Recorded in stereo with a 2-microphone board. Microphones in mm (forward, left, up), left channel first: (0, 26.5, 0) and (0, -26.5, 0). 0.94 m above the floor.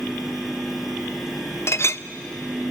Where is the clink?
55° left (ahead or behind), 0.6 m.